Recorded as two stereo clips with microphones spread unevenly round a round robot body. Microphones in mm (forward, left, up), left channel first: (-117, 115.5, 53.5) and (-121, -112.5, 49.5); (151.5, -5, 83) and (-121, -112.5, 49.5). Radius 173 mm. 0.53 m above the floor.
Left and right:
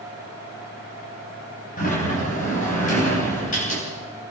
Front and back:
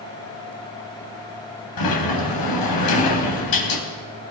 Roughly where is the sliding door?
Ahead left.